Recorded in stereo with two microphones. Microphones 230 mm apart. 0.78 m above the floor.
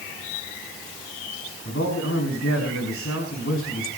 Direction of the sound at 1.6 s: 80° left.